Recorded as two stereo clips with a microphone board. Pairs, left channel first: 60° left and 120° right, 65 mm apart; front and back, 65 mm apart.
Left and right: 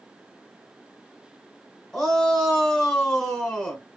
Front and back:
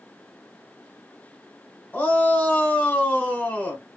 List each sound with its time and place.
1.9 s a shout: 10° right, 1.1 m